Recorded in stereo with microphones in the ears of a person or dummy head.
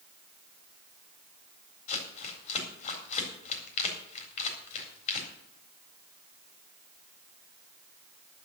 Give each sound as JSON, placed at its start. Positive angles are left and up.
{"t": 1.9, "sound": "crumpling", "side_deg": 45, "distance_m": 4.0}